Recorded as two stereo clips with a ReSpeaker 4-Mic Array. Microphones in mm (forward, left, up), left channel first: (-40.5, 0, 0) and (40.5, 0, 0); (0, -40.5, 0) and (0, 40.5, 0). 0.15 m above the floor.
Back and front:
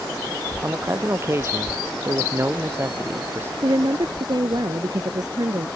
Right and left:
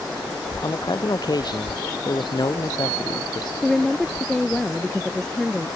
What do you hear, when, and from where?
0.6 s a man speaking: 55° right
3.6 s a woman speaking: 10° right